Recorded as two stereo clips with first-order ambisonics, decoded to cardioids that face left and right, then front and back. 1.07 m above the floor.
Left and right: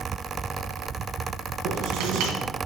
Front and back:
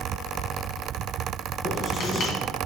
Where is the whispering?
No whispering in this recording.